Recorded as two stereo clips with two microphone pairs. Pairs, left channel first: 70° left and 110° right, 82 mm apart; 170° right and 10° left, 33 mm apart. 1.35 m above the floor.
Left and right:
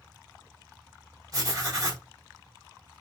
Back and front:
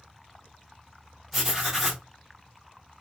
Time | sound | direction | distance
1.3 | writing | 80° right | 1.6 m